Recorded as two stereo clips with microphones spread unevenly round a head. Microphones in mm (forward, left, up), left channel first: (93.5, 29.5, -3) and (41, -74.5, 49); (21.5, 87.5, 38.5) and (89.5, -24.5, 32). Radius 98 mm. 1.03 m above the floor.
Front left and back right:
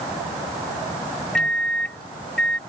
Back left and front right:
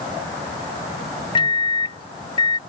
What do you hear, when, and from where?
1.4 s a microwave: 95° left